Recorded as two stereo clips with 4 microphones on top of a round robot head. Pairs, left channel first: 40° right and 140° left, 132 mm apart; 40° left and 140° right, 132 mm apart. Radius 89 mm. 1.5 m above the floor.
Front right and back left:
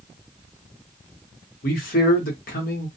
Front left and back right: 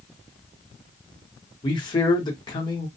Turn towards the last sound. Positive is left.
turn(degrees=-20)